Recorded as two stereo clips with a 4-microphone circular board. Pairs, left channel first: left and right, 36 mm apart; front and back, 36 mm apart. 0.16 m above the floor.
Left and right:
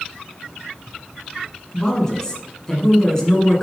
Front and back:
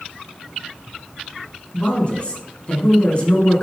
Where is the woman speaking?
30° left, 2 m.